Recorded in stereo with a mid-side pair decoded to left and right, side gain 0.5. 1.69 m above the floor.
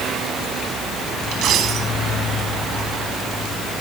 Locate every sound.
1.3 s a dropped coin: 65° right, 5 m